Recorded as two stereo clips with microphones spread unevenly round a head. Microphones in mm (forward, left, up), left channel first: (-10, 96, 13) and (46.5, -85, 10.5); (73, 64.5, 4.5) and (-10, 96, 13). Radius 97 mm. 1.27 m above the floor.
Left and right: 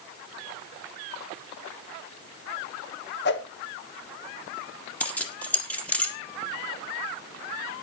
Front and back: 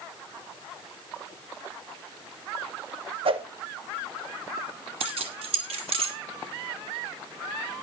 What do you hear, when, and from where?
3.2 s a whoosh: 145° left, 1.4 m
5.0 s keys jangling: 170° right, 1.7 m